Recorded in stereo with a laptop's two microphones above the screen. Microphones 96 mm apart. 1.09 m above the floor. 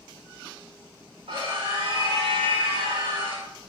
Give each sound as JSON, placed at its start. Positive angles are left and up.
{"t": 1.3, "sound": "a scream", "side_deg": -80, "distance_m": 4.0}